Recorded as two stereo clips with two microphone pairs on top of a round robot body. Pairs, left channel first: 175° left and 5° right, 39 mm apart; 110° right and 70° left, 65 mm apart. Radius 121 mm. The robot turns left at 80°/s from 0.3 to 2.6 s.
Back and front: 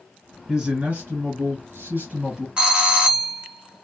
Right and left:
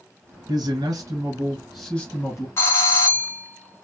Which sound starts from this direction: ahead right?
A doorbell, at 2.6 s.